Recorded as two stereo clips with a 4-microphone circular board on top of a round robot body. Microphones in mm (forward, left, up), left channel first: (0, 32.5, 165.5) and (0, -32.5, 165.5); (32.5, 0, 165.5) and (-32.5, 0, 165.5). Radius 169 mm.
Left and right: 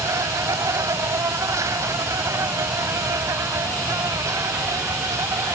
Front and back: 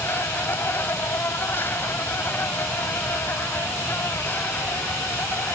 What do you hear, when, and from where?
0.0 s an insect: 55° right